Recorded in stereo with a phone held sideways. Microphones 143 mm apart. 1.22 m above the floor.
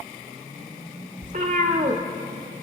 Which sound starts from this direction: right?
A cat meowing, at 1.2 s.